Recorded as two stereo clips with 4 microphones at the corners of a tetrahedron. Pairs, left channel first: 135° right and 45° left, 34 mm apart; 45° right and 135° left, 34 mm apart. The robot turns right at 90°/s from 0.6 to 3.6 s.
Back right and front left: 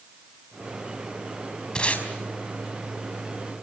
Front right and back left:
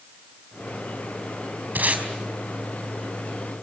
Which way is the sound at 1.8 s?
160° left.